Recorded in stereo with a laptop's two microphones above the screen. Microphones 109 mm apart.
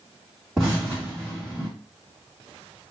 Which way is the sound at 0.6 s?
5° right (ahead or behind).